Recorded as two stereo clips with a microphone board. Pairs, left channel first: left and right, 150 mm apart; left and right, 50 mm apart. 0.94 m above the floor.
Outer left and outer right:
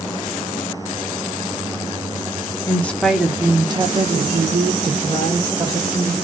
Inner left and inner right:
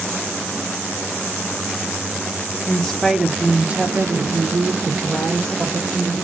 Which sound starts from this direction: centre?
A woman speaking, at 2.7 s.